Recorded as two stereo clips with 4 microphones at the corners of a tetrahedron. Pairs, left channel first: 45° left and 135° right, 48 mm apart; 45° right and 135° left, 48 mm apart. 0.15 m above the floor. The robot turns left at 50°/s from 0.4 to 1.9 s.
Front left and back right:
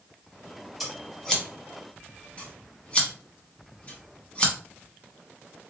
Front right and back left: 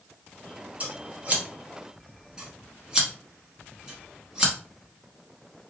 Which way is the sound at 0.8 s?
135° left.